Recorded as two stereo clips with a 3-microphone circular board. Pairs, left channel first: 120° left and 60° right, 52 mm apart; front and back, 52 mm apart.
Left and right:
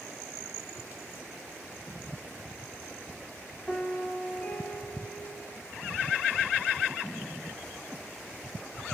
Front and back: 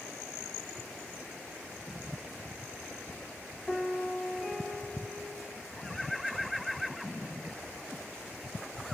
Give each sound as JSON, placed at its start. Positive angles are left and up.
{"t": 3.7, "sound": "a piano", "azimuth_deg": 65, "distance_m": 0.8}